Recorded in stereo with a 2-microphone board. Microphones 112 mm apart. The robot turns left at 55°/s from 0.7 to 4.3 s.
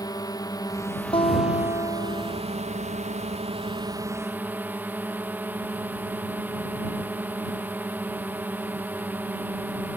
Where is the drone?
35° left; by 10.0 s 165° right.